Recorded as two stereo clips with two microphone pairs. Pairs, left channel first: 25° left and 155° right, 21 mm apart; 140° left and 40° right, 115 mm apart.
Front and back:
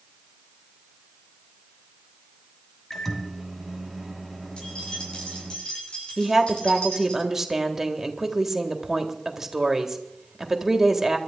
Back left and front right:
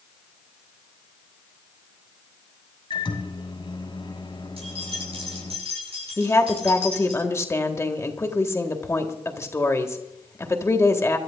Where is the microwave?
105° left, 2.5 m.